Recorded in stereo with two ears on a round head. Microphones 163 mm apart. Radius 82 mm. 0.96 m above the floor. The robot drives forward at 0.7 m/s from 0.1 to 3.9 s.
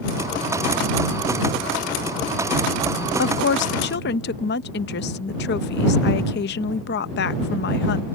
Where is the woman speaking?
60° left (ahead or behind).